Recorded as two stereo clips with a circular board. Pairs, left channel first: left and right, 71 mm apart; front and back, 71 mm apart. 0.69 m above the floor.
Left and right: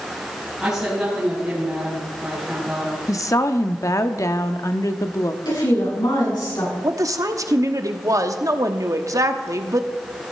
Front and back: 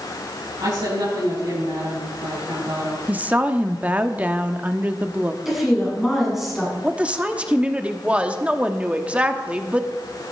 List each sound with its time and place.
0.6 s a woman speaking: 170° right, 5.5 m
3.1 s a woman speaking: 115° left, 0.9 m
5.5 s a woman speaking: 95° left, 7.5 m
6.8 s a woman speaking: 110° right, 1.0 m